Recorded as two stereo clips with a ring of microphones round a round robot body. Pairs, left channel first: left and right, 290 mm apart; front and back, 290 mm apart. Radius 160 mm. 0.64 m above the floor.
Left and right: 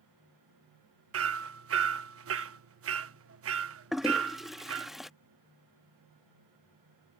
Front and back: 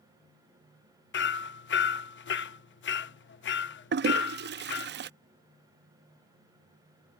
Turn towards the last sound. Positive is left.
turn(degrees=180)